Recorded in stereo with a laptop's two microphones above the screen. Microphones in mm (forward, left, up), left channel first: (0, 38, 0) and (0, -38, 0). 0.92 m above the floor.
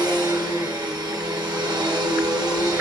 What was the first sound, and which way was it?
A machine running, 60° right (ahead or behind).